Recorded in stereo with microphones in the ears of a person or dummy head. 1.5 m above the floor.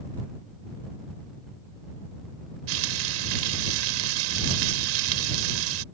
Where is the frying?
80° right.